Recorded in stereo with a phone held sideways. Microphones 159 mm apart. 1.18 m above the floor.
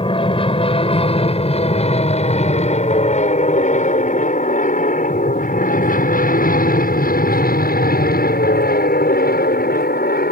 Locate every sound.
0.0 s an aircraft: 35° left (ahead or behind); by 10.3 s 70° left (ahead or behind)